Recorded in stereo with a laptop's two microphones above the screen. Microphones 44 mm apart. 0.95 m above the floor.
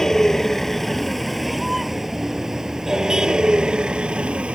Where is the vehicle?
10° left (ahead or behind); by 4.5 s 25° right (ahead or behind).